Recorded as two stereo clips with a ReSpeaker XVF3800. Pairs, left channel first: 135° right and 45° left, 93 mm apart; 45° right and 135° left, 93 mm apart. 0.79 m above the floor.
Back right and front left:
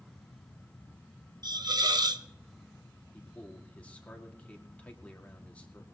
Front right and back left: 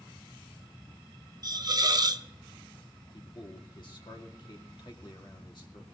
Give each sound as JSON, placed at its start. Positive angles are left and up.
{"t": 1.4, "sound": "a hiss", "azimuth_deg": 90, "distance_m": 0.7}
{"t": 3.1, "sound": "a man speaking", "azimuth_deg": -60, "distance_m": 2.0}